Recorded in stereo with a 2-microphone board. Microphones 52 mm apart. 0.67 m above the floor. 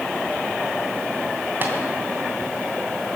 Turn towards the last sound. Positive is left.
turn(degrees=-40)  # may be behind; listen again after turning